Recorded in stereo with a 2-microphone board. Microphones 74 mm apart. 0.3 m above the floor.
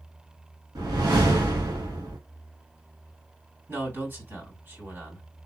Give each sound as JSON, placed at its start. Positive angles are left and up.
{"t": 0.8, "sound": "a whoosh", "side_deg": -70, "distance_m": 1.8}
{"t": 3.7, "sound": "a man speaking", "side_deg": -30, "distance_m": 2.5}